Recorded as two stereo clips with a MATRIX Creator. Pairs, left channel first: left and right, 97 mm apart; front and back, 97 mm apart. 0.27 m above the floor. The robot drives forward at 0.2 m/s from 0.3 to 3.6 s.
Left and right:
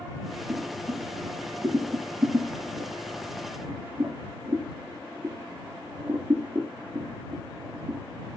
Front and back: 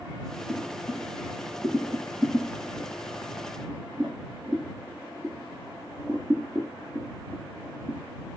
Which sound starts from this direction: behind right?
Boiling, at 0.5 s.